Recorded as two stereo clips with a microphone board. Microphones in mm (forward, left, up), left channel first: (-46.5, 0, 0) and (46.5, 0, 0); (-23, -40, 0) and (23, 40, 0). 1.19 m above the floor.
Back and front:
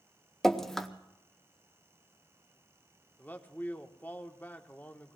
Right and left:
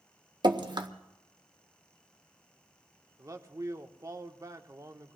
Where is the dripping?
95° left, 0.9 m.